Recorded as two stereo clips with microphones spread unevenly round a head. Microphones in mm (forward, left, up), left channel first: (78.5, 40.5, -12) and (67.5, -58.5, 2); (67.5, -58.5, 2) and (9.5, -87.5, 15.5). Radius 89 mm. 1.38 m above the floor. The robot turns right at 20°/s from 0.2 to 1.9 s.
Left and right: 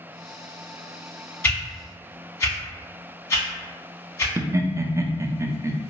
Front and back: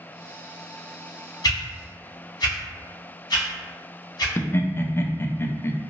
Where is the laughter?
35° right, 0.5 m.